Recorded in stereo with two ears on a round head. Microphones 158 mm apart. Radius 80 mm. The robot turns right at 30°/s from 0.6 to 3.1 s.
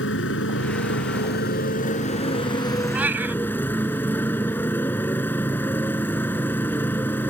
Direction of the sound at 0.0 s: 95° left.